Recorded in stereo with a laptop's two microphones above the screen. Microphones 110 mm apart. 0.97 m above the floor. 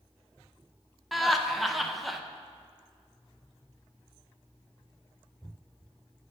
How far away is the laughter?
About 0.5 m.